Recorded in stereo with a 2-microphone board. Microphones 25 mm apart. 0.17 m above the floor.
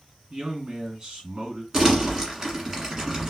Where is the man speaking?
40° right (ahead or behind), 1.9 m.